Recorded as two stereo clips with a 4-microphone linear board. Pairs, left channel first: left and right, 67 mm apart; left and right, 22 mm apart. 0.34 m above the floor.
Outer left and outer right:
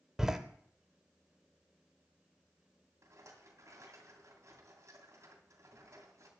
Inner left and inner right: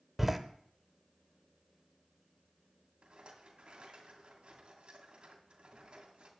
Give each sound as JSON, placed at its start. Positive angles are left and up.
{"t": 0.2, "sound": "a door slam", "side_deg": -5, "distance_m": 0.8}
{"t": 3.0, "sound": "a rattle", "side_deg": -50, "distance_m": 2.0}